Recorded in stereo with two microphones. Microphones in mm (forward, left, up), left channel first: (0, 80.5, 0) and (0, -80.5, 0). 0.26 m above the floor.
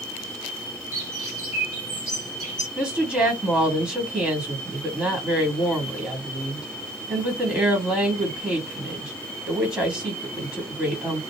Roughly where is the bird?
Left.